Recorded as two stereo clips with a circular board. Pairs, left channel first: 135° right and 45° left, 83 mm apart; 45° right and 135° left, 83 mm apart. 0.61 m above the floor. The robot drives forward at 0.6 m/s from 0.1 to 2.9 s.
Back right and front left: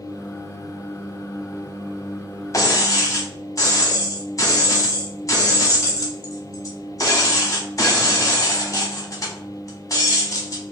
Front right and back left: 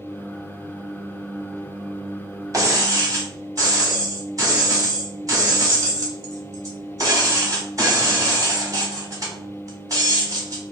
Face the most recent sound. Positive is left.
turn(degrees=180)